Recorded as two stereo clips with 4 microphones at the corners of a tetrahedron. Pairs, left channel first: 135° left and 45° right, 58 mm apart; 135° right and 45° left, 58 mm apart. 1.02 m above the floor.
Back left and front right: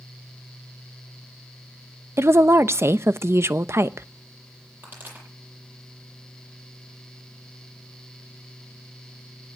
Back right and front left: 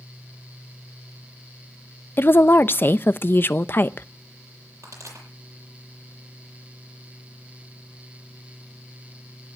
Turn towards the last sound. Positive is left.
turn(degrees=10)